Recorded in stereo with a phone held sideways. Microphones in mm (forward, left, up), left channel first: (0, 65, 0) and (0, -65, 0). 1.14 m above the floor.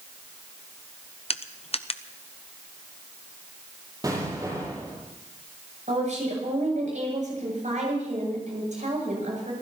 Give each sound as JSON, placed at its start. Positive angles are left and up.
{"t": 1.3, "sound": "crushing", "side_deg": 50, "distance_m": 0.7}
{"t": 4.0, "sound": "an explosion", "side_deg": -30, "distance_m": 8.5}
{"t": 5.9, "sound": "a woman speaking", "side_deg": -70, "distance_m": 8.0}